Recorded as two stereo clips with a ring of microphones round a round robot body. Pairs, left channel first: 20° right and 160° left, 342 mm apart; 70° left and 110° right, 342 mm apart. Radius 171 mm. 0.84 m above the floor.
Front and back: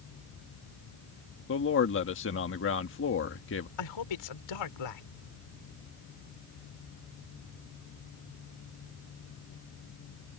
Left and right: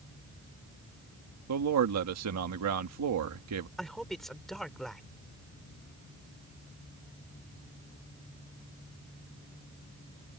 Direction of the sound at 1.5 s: 75° right.